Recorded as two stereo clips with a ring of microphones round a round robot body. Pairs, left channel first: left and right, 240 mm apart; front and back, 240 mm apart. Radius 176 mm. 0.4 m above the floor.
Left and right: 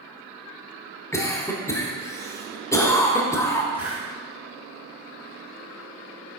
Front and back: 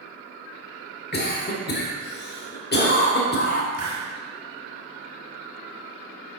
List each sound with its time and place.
1.1 s a cough: 15° left, 1.3 m
3.7 s a hiss: 155° right, 1.7 m